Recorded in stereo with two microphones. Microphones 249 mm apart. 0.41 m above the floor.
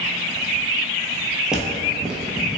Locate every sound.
1.5 s footsteps: 5° right (ahead or behind), 0.6 m